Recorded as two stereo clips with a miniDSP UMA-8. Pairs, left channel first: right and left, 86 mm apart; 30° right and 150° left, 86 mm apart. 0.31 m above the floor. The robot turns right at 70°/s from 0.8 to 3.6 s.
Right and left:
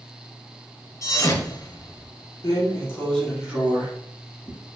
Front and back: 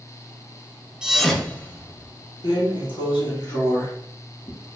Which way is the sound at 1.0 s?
130° right.